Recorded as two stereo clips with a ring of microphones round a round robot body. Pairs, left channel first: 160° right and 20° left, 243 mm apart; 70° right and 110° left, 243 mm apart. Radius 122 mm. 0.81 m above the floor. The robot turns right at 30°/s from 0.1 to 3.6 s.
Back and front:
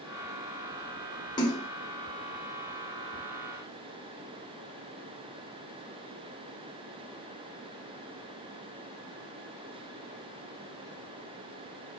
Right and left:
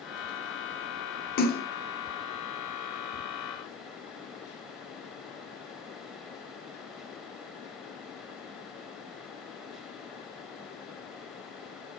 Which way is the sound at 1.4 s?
95° right.